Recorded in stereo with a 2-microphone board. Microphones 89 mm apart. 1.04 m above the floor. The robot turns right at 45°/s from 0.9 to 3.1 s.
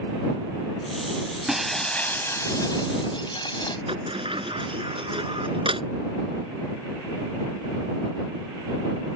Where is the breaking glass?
5° right; by 3.8 s 65° left.